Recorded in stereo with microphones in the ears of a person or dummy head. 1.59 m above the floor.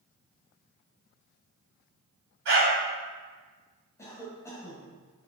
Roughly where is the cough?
Centre.